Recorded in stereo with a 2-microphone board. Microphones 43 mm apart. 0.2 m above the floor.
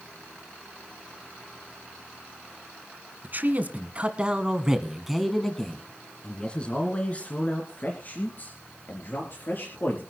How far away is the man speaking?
About 1.8 m.